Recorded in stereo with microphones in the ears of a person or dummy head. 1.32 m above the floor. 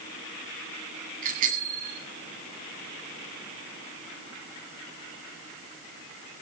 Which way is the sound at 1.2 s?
45° right (ahead or behind).